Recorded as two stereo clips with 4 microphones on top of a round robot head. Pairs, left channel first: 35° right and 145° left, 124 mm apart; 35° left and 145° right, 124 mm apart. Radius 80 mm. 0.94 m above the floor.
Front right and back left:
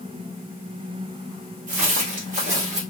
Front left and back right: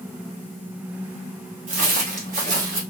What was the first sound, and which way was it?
Footsteps, straight behind.